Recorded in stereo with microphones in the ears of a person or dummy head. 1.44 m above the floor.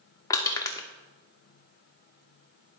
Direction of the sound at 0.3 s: 15° left (ahead or behind).